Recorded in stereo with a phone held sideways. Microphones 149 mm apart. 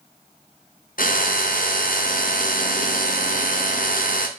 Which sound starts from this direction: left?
A drill, at 1.0 s.